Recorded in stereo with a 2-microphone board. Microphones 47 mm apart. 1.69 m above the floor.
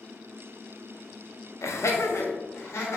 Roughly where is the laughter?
Left.